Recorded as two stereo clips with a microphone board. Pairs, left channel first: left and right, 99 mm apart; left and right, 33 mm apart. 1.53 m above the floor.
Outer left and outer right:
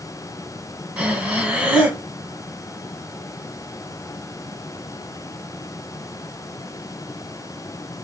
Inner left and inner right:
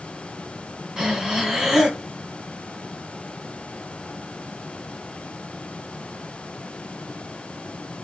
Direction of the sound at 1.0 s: 10° right (ahead or behind).